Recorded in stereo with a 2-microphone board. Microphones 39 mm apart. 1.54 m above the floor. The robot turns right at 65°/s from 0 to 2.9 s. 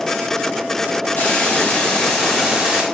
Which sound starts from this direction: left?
A hiss, at 1.2 s.